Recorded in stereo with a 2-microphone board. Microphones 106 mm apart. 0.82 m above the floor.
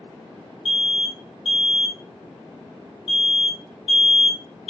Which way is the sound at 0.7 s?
5° right (ahead or behind).